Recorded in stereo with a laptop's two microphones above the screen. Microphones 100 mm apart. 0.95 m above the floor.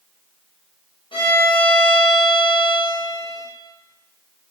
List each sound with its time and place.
1.1 s a violin: 60° left (ahead or behind), 0.7 m